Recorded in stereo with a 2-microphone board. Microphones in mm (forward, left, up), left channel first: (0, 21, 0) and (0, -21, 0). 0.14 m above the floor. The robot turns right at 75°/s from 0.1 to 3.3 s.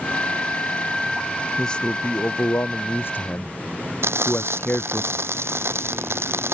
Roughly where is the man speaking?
Ahead.